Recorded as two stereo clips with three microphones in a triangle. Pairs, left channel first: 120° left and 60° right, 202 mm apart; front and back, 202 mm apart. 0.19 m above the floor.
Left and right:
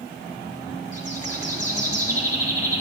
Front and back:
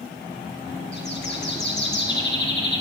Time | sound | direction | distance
0.9 | a bird | 10° left | 2 m